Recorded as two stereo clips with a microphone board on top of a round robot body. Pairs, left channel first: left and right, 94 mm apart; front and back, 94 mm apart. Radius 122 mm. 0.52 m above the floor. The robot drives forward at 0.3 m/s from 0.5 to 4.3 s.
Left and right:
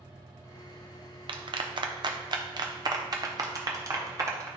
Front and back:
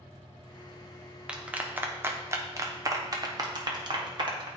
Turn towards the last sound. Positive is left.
turn(degrees=-145)